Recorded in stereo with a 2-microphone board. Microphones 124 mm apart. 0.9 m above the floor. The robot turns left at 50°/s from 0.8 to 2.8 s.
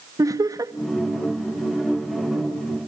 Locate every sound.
0.2 s laughter: 25° right (ahead or behind), 1.1 m